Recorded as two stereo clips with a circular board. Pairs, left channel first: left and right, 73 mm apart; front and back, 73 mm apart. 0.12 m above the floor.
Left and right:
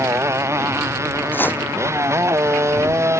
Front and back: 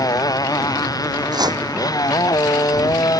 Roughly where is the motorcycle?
Ahead right.